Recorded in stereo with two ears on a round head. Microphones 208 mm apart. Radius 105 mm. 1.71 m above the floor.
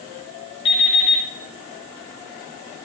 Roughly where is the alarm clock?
Left.